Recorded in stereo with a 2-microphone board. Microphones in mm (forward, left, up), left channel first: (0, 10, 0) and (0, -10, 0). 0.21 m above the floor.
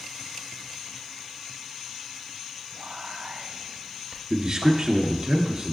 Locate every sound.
2.7 s whispering: 60° right (ahead or behind), 2.5 m
4.3 s a man speaking: 35° right (ahead or behind), 2.5 m